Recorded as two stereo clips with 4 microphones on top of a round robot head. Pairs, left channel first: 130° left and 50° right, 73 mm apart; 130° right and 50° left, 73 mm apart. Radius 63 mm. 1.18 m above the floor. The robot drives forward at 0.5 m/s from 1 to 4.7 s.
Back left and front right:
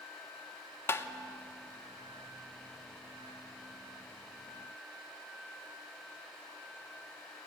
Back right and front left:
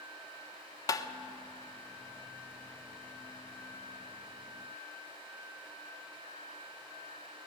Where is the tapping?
170° right, 1.0 m.